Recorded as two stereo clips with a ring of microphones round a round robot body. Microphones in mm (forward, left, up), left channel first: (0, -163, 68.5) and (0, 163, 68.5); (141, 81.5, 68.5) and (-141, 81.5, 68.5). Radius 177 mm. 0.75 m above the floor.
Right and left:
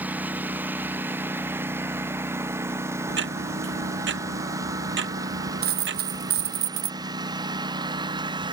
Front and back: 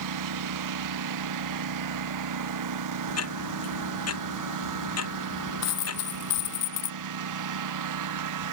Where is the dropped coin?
30° left.